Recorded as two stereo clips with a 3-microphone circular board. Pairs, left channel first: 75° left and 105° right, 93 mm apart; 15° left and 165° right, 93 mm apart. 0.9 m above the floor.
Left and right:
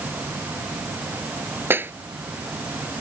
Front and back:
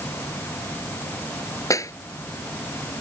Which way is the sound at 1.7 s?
40° right.